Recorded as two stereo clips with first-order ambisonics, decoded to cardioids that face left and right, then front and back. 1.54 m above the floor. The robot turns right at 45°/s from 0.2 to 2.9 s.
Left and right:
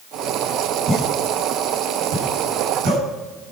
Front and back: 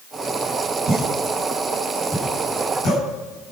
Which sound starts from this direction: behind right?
A pop, at 0.9 s.